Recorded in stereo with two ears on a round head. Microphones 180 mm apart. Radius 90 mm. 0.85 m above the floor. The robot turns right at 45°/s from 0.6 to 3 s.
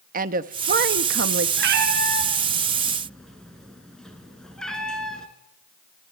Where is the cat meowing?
60° right (ahead or behind), 3 m; by 5.3 s 5° left (ahead or behind), 3 m.